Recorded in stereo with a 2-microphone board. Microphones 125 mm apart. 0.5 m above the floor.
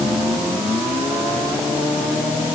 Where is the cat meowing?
I don't hear a cat meowing.